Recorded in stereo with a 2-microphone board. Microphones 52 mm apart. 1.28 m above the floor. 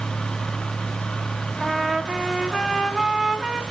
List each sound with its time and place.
1.6 s a trumpet: centre (ahead or behind), 2.5 m